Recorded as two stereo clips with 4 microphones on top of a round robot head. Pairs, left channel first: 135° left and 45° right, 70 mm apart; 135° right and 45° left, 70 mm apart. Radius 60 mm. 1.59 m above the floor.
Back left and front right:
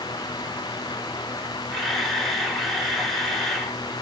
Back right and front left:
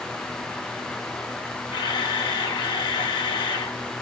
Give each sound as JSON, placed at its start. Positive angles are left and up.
{"t": 1.7, "sound": "a camera shutter", "azimuth_deg": -135, "distance_m": 1.6}